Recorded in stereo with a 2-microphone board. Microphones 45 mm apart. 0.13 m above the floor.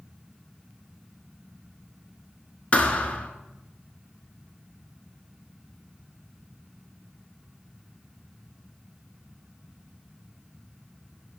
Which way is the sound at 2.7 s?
30° left (ahead or behind).